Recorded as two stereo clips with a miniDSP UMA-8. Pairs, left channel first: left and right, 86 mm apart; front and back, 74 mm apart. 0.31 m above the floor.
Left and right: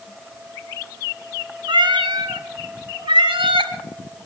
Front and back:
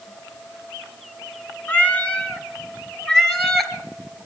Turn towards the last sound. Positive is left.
turn(degrees=-90)